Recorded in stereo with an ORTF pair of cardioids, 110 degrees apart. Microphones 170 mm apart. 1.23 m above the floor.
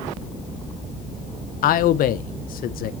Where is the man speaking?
55° left, 0.5 m.